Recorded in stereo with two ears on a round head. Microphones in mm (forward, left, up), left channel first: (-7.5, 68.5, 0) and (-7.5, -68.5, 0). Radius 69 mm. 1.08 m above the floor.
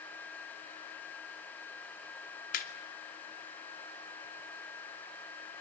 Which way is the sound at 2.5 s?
60° left (ahead or behind).